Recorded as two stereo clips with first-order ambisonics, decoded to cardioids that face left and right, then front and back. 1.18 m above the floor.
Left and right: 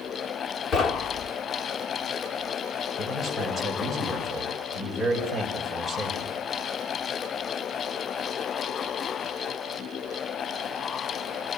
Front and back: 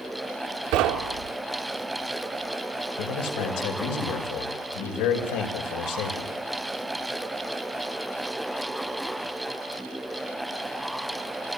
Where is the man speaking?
5° left, 6.5 m.